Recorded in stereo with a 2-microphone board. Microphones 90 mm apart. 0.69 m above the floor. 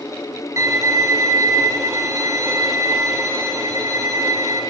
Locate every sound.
0.6 s a violin: 40° right (ahead or behind), 3.5 m